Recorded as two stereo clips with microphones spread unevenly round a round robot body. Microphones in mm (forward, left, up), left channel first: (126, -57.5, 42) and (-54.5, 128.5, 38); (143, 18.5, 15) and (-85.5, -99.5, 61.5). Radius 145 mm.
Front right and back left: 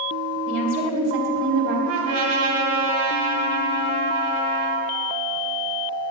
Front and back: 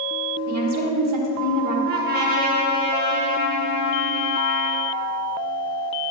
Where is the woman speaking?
175° left, 1.8 m.